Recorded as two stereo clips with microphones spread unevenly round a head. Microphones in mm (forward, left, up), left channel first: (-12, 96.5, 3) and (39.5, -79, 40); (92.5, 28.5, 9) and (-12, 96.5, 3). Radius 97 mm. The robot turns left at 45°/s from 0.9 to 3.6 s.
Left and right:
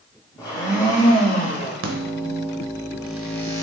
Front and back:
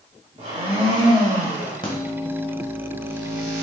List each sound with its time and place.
0.4 s a blender: 175° right, 1.1 m; by 1.7 s 145° left, 1.1 m
1.8 s a microwave: 100° right, 0.7 m; by 3.6 s straight behind, 0.7 m